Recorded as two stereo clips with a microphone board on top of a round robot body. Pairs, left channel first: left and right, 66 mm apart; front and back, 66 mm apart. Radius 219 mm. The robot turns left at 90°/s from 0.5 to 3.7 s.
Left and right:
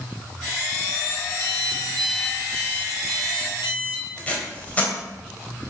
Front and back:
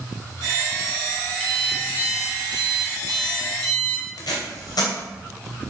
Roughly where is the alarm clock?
Right.